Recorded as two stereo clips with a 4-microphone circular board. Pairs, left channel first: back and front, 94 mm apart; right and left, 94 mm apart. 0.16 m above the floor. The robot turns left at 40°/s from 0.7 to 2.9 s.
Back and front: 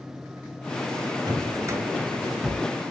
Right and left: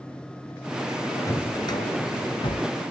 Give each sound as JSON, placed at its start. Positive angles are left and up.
{"t": 1.3, "sound": "a drawer", "azimuth_deg": -40, "distance_m": 1.8}